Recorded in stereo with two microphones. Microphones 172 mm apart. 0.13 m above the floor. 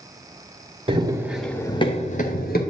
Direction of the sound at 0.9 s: 30° right (ahead or behind).